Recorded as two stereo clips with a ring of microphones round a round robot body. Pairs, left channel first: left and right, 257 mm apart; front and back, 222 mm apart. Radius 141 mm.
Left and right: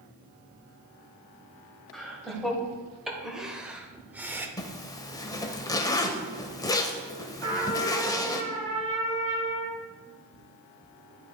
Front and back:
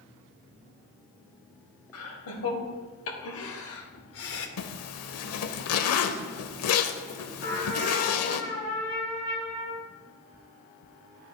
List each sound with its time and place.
1.9 s laughter: straight ahead, 3 m; by 4.5 s 10° right, 1.5 m
4.6 s a zipper: 15° left, 0.8 m
7.4 s a trumpet: 50° right, 3.5 m